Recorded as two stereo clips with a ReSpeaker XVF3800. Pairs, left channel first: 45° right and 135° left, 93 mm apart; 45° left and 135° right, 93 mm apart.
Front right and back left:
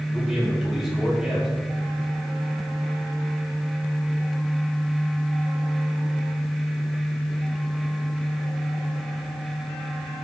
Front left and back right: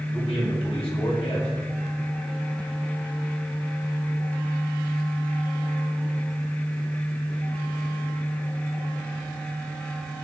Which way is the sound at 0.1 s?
50° left.